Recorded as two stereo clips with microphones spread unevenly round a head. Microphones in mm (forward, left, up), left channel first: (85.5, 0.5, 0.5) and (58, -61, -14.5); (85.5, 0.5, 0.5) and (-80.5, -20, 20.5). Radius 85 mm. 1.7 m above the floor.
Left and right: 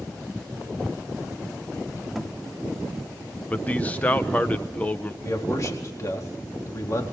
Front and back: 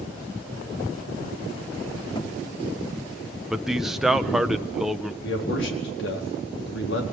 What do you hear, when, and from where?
2.1 s a thud: 30° left, 1.2 m
3.5 s a man speaking: 105° left, 0.7 m
5.2 s a man speaking: 25° left, 4 m